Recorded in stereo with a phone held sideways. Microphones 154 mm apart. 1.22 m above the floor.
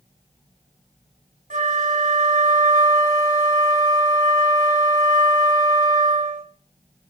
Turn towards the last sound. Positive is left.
turn(degrees=-55)  # may be behind; listen again after turning